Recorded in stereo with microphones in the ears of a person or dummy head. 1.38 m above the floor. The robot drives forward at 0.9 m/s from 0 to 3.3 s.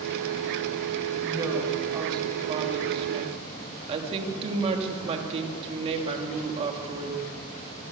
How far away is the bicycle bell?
No bicycle bell in this recording.